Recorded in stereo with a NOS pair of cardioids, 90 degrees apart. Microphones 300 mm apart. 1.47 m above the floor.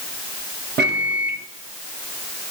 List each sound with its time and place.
0.8 s a microwave: 35° right, 0.7 m